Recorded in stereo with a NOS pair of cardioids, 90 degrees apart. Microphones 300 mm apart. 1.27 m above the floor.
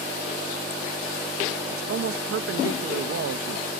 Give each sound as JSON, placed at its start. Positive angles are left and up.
{"t": 1.7, "sound": "a man speaking", "azimuth_deg": -50}